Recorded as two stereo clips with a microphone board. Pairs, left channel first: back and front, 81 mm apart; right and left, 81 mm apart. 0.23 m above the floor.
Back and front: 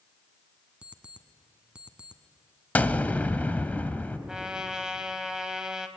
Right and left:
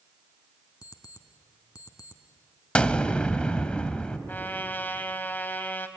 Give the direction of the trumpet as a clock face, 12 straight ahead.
2 o'clock.